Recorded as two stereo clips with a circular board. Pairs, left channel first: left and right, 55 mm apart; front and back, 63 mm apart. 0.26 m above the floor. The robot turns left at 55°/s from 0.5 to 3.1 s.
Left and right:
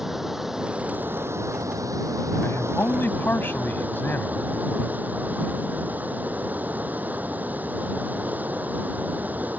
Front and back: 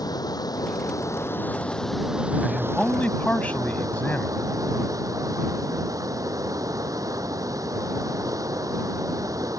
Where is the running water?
10° right; by 9.6 s 150° right.